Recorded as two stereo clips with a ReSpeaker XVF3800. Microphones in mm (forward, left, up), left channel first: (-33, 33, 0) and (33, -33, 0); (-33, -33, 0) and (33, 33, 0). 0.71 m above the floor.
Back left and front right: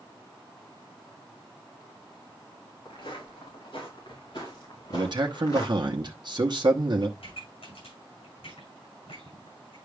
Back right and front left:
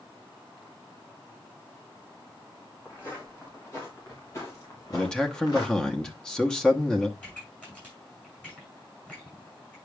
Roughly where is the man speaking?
Ahead right.